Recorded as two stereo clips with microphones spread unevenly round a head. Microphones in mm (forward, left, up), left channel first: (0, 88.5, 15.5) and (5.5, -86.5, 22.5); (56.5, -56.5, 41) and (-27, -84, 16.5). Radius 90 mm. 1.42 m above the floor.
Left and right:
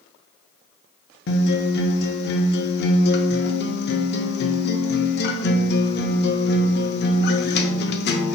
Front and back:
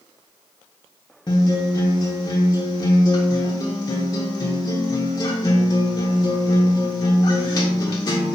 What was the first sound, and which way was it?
A guitar, 80° left.